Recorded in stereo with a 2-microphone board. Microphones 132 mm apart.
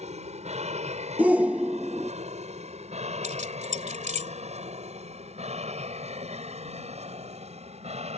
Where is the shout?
10° right (ahead or behind).